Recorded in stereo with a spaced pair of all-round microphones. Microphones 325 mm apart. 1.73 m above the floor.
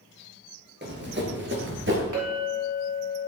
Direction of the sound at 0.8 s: 35° right (ahead or behind).